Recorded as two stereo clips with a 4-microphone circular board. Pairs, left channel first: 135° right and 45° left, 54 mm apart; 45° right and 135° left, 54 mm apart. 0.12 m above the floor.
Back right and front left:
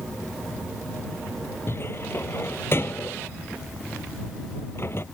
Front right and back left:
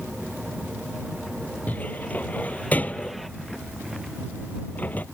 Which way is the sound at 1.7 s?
100° right.